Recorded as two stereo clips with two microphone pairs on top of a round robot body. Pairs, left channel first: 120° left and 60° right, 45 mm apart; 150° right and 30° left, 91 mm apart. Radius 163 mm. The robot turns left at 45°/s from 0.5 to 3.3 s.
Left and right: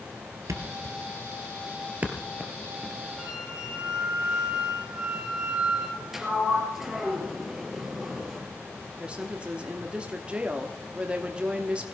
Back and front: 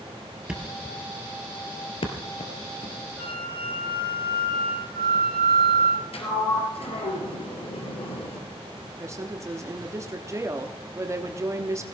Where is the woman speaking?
20° right, 1.3 m.